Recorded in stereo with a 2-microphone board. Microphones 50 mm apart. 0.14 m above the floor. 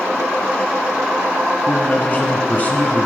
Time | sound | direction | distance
1.7 | a man speaking | 30° left (ahead or behind) | 1.2 m